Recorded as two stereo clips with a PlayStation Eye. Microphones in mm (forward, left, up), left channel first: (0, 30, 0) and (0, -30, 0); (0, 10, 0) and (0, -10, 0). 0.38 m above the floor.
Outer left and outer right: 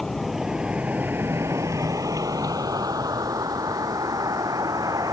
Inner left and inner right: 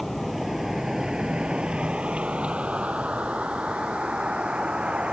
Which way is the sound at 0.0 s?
5° left (ahead or behind).